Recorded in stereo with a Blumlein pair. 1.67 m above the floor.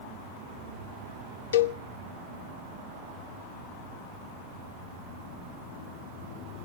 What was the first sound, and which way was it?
A cowbell, 65° left.